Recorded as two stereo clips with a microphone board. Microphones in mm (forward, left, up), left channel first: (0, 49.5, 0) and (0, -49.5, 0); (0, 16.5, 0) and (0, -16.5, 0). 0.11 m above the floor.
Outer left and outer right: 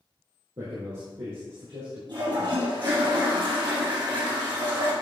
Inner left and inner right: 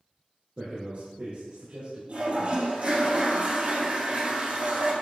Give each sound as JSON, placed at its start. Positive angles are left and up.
{"t": 0.6, "sound": "a man speaking", "side_deg": -65, "distance_m": 3.0}
{"t": 2.1, "sound": "a toilet flushing", "side_deg": -55, "distance_m": 3.0}